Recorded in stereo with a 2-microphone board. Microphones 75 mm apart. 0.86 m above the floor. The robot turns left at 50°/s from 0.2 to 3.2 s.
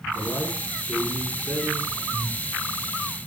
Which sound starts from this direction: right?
Breathing, at 2.1 s.